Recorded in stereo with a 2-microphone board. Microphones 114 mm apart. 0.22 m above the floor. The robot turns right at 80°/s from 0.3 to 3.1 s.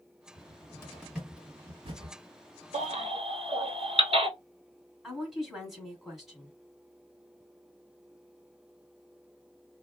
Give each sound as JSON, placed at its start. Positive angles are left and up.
{"t": 0.4, "sound": "a cupboard door", "side_deg": 50, "distance_m": 1.5}
{"t": 2.7, "sound": "a baby crying", "side_deg": -75, "distance_m": 1.0}
{"t": 5.0, "sound": "a woman speaking", "side_deg": -5, "distance_m": 1.7}